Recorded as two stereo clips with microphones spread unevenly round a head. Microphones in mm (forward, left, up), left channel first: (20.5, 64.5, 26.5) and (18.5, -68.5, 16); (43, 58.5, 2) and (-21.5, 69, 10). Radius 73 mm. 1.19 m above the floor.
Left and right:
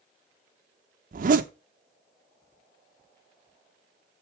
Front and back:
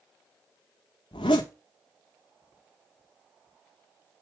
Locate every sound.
1.1 s a zipper: 60° right, 0.7 m